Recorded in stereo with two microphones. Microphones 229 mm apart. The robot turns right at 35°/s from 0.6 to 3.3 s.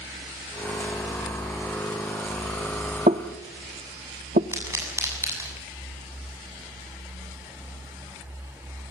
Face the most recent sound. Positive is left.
turn(degrees=-10)  # may be behind; listen again after turning